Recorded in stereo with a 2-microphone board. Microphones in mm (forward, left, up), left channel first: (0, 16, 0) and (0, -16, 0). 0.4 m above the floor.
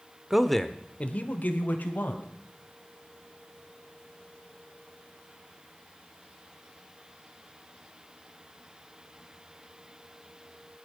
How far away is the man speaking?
About 1.0 m.